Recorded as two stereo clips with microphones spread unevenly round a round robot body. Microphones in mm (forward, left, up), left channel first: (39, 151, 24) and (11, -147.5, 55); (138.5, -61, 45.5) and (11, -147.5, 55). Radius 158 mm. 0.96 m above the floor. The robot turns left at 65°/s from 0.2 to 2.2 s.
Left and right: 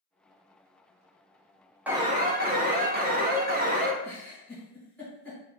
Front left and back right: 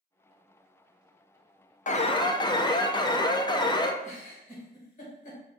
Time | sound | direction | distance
1.9 | an alarm | 10° right | 0.6 m
4.0 | a giggle | 5° right | 1.7 m